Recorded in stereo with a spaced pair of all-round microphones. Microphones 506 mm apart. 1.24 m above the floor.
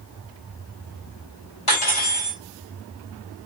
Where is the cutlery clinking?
80° left, 3.5 m.